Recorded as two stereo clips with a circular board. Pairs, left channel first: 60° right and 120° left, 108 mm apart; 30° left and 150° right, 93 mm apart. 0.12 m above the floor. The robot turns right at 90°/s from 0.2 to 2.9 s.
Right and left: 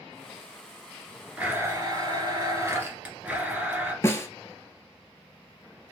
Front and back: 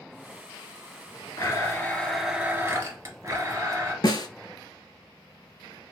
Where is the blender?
50° left, 1.4 m; by 3.9 s 170° right, 1.4 m.